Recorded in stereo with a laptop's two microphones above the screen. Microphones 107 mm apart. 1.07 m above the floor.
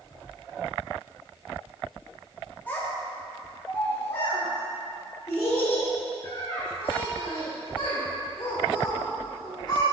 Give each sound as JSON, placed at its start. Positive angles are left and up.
{"t": 2.7, "sound": "a child speaking", "side_deg": 15, "distance_m": 1.2}